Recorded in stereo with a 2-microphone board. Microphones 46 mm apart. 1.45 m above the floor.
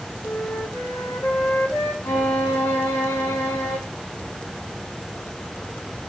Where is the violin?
70° left (ahead or behind), 3.5 m.